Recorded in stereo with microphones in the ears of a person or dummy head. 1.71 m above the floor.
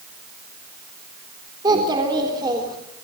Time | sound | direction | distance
1.6 | a child speaking | 25° right (ahead or behind) | 3.5 m